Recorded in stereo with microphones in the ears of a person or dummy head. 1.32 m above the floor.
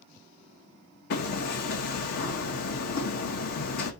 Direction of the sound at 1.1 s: 60° left (ahead or behind).